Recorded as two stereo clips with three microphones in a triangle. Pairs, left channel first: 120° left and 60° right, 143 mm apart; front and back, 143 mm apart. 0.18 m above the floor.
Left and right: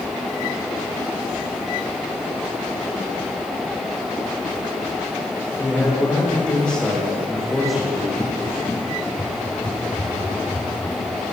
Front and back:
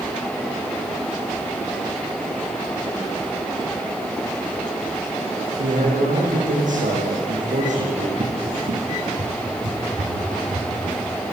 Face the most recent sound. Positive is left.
turn(degrees=-160)